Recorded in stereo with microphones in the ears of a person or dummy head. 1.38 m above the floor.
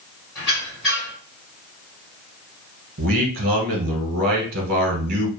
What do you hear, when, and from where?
0.3 s a squeak: centre (ahead or behind), 1.4 m
3.0 s a man speaking: 55° right (ahead or behind), 0.9 m